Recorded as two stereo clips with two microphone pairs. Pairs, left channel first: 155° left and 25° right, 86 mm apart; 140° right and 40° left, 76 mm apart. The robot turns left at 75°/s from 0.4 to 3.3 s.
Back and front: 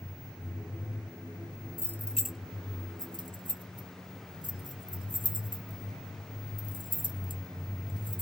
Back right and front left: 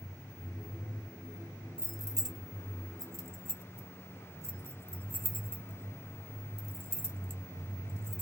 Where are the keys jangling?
100° left, 0.6 m; by 8.2 s 15° right, 0.6 m.